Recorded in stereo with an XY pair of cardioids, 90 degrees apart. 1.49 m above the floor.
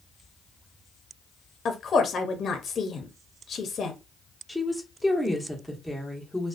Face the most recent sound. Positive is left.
turn(degrees=0)